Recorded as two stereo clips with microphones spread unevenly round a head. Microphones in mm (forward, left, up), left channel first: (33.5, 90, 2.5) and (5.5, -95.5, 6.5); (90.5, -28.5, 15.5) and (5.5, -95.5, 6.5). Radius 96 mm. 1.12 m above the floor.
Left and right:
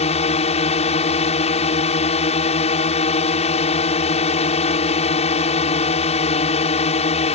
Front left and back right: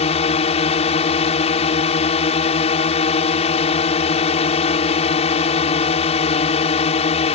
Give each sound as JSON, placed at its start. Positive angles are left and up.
{"t": 0.0, "sound": "a drone", "azimuth_deg": 25}